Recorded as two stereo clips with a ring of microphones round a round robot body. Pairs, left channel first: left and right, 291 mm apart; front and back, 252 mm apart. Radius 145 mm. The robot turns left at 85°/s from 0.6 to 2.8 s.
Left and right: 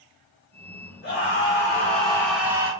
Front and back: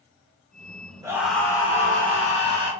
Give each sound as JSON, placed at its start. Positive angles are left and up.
{"t": 1.0, "sound": "a scream", "azimuth_deg": 110, "distance_m": 1.6}